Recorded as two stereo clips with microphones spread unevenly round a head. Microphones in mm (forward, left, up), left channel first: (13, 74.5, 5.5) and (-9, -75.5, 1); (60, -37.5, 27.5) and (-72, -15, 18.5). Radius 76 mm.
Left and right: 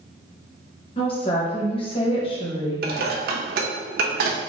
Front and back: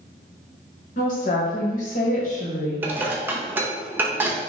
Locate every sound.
1.0 s a woman speaking: 25° left, 1.1 m
2.8 s dishes clattering: 115° right, 0.7 m